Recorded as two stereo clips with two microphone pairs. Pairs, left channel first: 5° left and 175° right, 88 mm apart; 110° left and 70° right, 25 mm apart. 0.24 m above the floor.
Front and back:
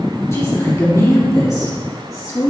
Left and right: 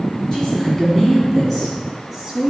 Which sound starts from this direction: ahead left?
A woman speaking, at 0.3 s.